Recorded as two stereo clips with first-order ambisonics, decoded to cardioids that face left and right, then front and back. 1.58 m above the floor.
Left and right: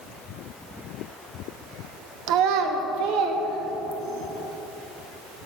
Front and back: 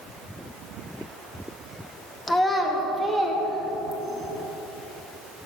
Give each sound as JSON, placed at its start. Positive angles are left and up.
{"t": 2.3, "sound": "a child speaking", "azimuth_deg": -75, "distance_m": 0.9}